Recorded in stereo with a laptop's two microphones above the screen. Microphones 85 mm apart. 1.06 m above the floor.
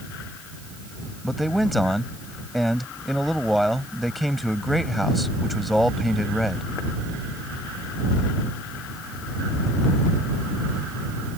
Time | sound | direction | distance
1.2 | a man speaking | centre (ahead or behind) | ?